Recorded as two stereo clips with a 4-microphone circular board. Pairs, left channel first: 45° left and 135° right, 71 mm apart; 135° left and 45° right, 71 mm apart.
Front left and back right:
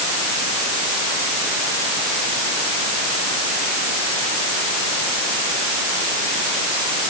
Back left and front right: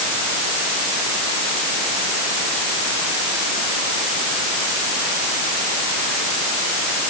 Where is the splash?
No splash in this recording.